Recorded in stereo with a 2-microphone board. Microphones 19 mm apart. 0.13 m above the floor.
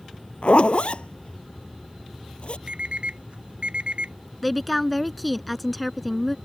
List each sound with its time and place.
0.4 s a zipper: 70° left (ahead or behind)
2.7 s an alarm clock: 65° right (ahead or behind)
4.4 s a woman speaking: centre (ahead or behind)